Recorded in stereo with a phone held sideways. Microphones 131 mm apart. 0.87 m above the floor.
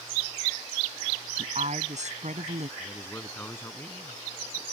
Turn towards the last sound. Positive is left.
turn(degrees=15)  # may be behind; listen again after turning